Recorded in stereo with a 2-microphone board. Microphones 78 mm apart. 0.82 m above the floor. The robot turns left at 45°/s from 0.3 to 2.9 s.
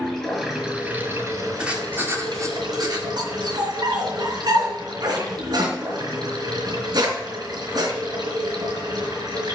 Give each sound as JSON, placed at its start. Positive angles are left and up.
{"t": 0.0, "sound": "running water", "azimuth_deg": 10, "distance_m": 5.0}
{"t": 1.6, "sound": "writing", "azimuth_deg": -15, "distance_m": 2.0}
{"t": 3.2, "sound": "a dog barking", "side_deg": -70, "distance_m": 4.0}